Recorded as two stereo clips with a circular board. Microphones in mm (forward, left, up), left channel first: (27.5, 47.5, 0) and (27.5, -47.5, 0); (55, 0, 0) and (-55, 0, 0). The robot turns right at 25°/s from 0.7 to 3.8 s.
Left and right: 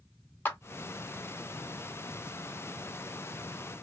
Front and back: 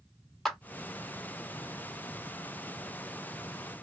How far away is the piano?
No piano in this recording.